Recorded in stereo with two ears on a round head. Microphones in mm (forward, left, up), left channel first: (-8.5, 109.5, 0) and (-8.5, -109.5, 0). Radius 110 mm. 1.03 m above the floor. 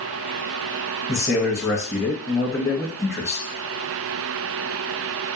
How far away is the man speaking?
About 1.4 m.